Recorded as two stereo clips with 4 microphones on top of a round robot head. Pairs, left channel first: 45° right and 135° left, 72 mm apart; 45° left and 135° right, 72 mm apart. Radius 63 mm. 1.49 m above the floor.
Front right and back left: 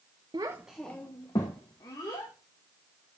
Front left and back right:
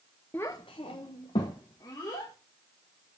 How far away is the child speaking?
About 0.5 m.